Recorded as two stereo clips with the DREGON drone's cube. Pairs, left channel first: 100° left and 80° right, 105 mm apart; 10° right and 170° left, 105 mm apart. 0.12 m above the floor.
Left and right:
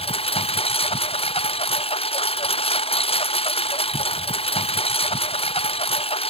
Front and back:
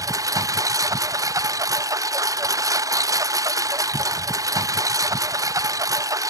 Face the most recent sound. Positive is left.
turn(degrees=115)